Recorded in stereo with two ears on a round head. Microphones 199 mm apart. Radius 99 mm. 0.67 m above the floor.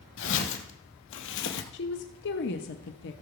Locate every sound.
0.2 s footsteps: 55° left (ahead or behind), 1.6 m
1.7 s a woman speaking: 55° left (ahead or behind), 0.9 m